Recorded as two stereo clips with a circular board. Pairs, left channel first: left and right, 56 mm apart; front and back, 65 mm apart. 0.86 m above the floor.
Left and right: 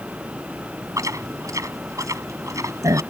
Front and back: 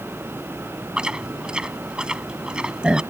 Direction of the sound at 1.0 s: 105° right.